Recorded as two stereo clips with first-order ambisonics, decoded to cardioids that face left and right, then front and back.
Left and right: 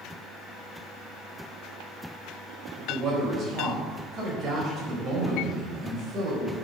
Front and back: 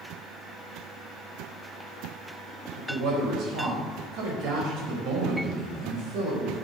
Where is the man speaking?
145° right, 4 m.